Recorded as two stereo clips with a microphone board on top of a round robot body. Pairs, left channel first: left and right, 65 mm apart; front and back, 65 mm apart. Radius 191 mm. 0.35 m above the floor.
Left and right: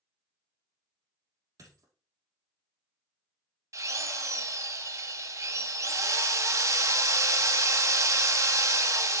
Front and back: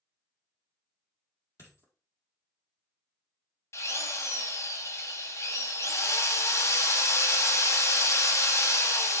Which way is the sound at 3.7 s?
50° right.